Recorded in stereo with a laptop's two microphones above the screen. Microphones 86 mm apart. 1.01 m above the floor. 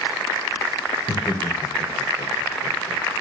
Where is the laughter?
60° left (ahead or behind), 4 m.